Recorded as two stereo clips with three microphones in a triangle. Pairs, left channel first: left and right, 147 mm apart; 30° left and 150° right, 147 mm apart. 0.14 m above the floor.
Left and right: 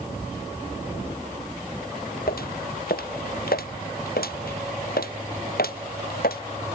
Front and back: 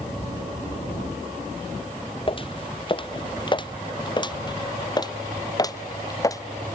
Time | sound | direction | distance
2.3 | footsteps | 85° left | ?